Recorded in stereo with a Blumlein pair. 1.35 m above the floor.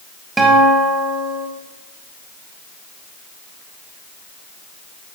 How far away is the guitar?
About 5.5 m.